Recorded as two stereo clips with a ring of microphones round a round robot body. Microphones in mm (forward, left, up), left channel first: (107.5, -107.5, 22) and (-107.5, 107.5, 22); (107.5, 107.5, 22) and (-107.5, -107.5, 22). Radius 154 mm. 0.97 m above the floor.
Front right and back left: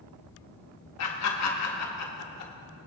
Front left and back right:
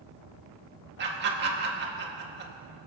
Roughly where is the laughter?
Right.